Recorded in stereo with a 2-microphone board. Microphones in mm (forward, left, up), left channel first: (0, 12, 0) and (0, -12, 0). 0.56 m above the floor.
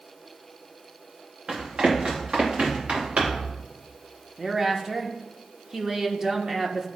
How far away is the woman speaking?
About 0.9 m.